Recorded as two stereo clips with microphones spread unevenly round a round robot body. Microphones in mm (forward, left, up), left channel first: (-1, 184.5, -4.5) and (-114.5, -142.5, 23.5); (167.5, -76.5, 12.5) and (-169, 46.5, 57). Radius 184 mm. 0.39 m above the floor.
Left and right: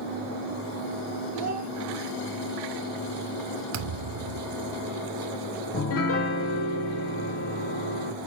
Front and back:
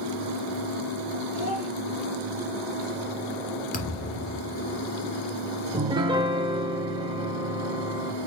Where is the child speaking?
5° left, 3 m.